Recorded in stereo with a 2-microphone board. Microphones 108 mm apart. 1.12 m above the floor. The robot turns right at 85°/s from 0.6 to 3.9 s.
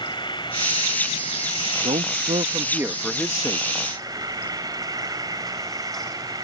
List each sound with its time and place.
0.0 s an insect: 45° left; by 6.5 s 35° right
1.8 s a man speaking: 105° right; by 3.7 s 50° left